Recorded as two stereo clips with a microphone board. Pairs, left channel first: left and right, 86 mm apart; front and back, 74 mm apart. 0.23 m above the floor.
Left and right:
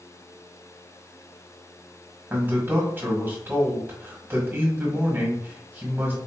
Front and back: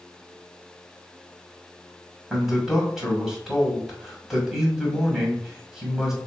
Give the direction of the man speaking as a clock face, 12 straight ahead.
4 o'clock.